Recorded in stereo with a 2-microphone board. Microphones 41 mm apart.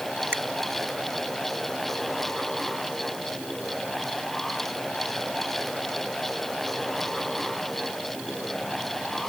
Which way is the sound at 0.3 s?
85° right.